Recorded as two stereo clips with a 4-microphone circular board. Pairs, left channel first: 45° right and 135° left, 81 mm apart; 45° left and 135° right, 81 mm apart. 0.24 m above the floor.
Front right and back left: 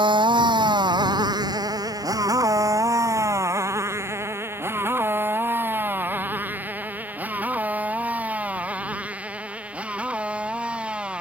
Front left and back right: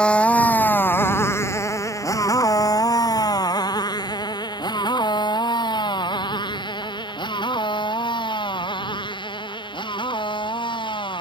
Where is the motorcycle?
125° left; by 11.2 s 60° left.